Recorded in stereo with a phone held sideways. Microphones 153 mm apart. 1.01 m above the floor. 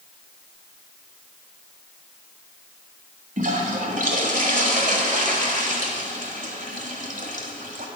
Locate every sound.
3.4 s a toilet flushing: 60° right (ahead or behind), 1.3 m